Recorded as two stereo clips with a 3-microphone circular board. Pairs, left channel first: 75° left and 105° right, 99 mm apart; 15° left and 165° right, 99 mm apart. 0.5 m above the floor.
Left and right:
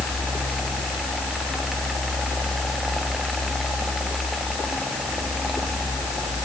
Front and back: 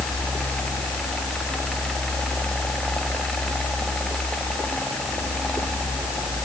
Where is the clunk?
No clunk in this recording.